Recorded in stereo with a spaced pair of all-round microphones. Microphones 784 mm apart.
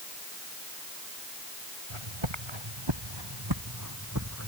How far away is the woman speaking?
No woman speaking in this recording.